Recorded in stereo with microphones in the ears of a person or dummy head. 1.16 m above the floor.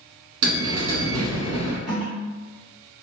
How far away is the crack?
I don't hear a crack.